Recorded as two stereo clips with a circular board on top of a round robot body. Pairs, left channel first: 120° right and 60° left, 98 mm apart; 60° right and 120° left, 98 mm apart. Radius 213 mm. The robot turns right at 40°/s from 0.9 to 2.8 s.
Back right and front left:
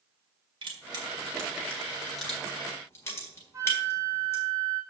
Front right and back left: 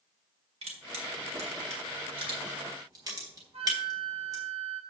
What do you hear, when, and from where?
0.6 s crushing: 95° left, 1.8 m; by 4.4 s 175° left, 1.8 m
3.5 s a flute: 120° left, 1.6 m